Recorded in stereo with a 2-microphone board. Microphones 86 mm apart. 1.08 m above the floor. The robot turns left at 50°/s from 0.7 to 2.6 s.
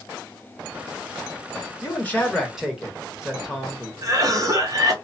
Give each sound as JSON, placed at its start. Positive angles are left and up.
{"t": 1.8, "sound": "a man speaking", "azimuth_deg": 35, "distance_m": 1.4}
{"t": 4.0, "sound": "a cough", "side_deg": -40, "distance_m": 1.0}